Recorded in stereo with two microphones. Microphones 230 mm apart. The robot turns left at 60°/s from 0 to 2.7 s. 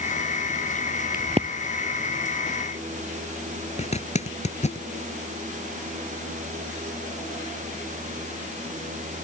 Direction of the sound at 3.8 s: 30° left (ahead or behind).